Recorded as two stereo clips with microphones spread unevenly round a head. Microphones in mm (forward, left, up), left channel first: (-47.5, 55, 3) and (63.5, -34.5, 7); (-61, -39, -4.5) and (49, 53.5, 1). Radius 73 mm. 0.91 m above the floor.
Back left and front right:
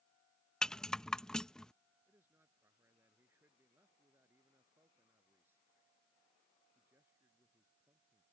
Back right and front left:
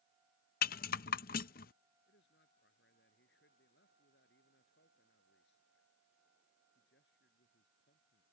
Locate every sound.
0.6 s a rattle: 135° right
2.1 s a man speaking: 115° right